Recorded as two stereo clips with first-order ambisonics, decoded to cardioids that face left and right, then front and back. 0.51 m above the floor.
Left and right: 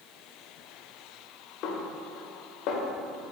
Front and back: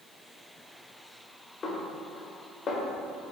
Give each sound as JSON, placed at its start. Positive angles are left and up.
{"t": 1.6, "sound": "a snare drum", "azimuth_deg": 65, "distance_m": 0.8}